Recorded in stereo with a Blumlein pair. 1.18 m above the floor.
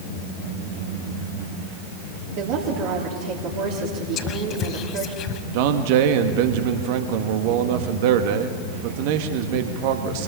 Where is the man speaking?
50° right, 1.8 m.